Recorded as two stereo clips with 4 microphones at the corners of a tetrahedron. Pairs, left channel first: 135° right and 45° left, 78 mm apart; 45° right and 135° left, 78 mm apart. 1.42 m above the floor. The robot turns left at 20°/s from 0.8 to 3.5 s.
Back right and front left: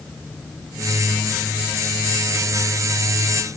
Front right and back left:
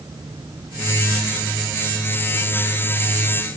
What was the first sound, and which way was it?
Only background noise.